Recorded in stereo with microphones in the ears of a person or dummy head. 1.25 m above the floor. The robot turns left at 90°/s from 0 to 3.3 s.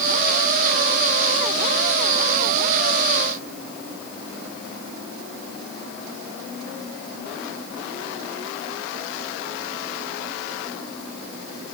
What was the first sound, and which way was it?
Only background noise.